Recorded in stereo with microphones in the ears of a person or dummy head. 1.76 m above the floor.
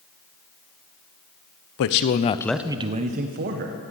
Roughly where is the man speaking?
Left.